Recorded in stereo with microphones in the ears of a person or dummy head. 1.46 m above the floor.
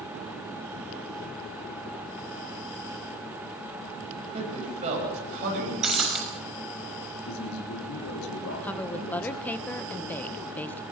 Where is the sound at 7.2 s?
80° left, 3 m.